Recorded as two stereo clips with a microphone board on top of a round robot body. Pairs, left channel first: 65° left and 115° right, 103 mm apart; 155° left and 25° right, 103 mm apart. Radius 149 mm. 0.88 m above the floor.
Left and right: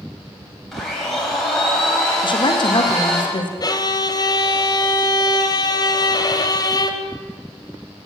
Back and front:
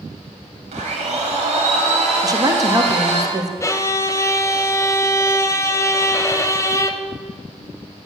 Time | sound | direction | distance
0.7 | a blender | 20° right | 3 m
2.2 | a woman speaking | 30° left | 1.6 m
3.6 | a violin | 105° left | 1.2 m